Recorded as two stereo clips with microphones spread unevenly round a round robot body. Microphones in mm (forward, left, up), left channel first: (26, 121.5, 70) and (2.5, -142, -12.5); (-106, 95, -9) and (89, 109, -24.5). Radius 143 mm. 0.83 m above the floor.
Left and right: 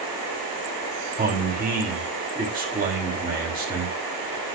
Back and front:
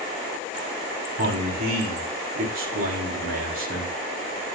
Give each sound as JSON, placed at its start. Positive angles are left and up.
{"t": 1.2, "sound": "a man speaking", "azimuth_deg": -40, "distance_m": 4.5}